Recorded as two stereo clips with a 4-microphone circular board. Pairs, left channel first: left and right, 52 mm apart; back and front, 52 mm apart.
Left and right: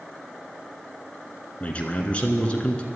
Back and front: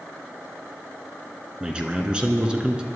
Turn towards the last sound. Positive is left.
turn(degrees=50)